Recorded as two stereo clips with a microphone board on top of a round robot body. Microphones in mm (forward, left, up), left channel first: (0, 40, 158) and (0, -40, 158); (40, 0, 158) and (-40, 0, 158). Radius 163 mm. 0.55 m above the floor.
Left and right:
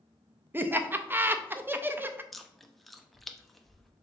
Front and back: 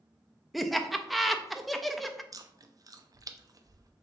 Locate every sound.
0.5 s laughter: 90° right, 0.6 m
2.3 s chewing: straight behind, 0.6 m